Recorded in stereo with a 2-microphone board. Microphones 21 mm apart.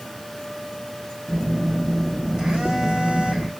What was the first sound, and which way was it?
A phone buzzing, 45° right (ahead or behind).